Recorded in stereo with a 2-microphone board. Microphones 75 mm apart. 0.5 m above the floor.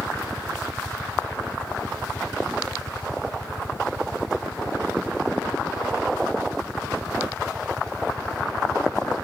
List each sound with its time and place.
0.0 s a helicopter: 20° right (ahead or behind)